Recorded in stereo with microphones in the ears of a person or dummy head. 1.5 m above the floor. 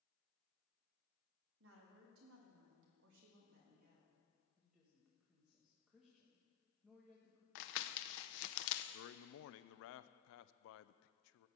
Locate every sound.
1.6 s a woman speaking: 75° right (ahead or behind), 2.5 m; by 4.2 s 40° right (ahead or behind), 2 m
4.6 s a woman speaking: centre (ahead or behind), 1.5 m
7.5 s crumpling: 65° left (ahead or behind), 0.7 m
8.9 s a man speaking: 75° left (ahead or behind), 0.5 m